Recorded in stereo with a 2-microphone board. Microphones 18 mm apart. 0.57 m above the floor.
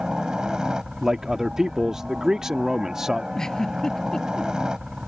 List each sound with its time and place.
0.0 s a helicopter: 35° right (ahead or behind)
1.0 s a man speaking: 25° right (ahead or behind)
3.4 s a giggle: 30° left (ahead or behind)